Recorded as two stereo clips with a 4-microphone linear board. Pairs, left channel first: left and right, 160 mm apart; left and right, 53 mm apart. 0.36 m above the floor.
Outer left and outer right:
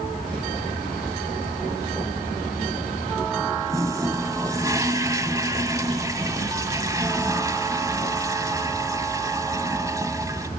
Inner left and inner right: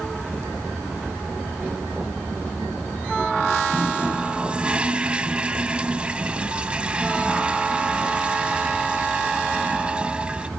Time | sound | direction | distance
3.7 | a toilet flushing | 20° right (ahead or behind) | 1.0 m